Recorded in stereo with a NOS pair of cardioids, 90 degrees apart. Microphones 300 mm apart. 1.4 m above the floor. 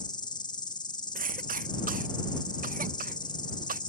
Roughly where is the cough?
Ahead right.